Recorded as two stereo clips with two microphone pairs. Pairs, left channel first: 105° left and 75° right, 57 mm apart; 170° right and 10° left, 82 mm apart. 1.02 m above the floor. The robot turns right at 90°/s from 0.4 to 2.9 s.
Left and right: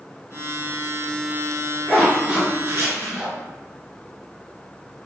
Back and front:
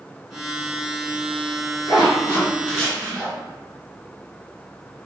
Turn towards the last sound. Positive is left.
turn(degrees=-75)